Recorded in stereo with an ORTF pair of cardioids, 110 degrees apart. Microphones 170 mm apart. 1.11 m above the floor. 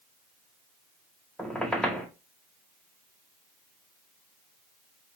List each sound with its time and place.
1.4 s a squeak: 5° left, 1.0 m